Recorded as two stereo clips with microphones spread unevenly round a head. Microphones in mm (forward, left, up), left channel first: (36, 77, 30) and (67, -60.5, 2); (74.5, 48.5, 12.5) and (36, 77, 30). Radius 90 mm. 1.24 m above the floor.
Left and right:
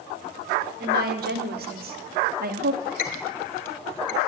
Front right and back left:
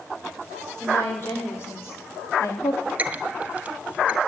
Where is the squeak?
100° left, 2 m.